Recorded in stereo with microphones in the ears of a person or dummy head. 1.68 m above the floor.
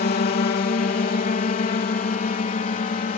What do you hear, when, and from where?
0.0 s a drone: 45° left (ahead or behind); by 3.2 s 35° left (ahead or behind)